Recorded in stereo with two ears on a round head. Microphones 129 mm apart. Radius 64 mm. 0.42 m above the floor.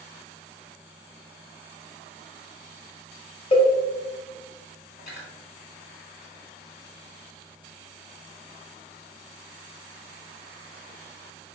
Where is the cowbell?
35° left (ahead or behind), 0.7 m.